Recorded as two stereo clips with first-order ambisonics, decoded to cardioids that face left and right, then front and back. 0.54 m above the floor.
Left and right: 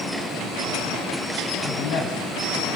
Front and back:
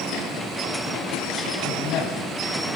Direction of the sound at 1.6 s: 55° left.